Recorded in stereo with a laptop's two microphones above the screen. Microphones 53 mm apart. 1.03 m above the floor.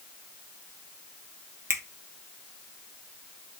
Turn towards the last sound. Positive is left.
turn(degrees=-60)  # may be behind; listen again after turning